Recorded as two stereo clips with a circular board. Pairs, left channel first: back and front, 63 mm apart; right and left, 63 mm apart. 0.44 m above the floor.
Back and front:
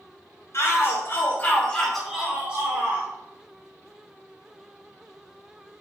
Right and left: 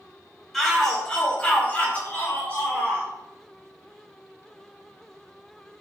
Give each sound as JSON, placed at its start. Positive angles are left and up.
{"t": 0.5, "sound": "a shout", "azimuth_deg": -175, "distance_m": 1.2}